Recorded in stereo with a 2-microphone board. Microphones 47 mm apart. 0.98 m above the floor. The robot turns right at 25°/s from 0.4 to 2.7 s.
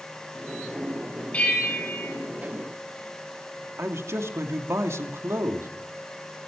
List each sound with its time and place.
1.3 s a bell: 30° left (ahead or behind), 9 m; by 2.1 s 50° left (ahead or behind), 9 m
3.8 s a man speaking: 70° right (ahead or behind), 2.5 m